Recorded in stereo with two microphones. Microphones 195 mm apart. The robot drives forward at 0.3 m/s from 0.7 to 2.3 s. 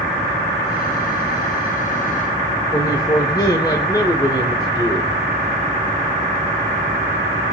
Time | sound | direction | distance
2.7 | a man speaking | 20° left (ahead or behind) | 1.0 m